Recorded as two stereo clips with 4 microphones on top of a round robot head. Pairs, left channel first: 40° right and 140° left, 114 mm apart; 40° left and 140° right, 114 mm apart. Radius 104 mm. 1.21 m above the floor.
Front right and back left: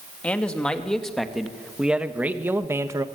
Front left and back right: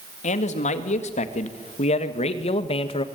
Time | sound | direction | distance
0.2 | a man speaking | 40° left | 2.5 m